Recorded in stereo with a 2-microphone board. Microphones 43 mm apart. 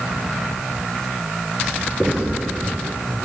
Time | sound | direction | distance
1.6 | writing | 5° left (ahead or behind) | 3 m